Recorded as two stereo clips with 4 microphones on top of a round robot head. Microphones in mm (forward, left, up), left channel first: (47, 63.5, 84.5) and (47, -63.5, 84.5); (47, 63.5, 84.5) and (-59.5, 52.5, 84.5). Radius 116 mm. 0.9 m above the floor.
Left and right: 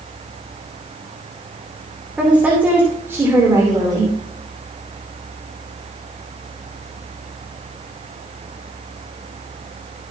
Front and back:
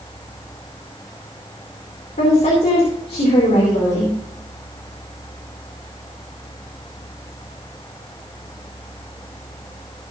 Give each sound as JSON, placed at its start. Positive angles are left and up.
{"t": 2.2, "sound": "a woman speaking", "azimuth_deg": -10, "distance_m": 3.0}